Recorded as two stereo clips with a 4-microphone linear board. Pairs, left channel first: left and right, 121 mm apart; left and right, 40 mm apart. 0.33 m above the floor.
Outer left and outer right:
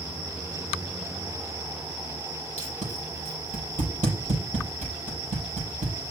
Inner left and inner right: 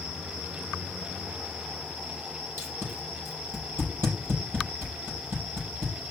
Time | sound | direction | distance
2.6 | tape being pulled | 80° right | 6.5 m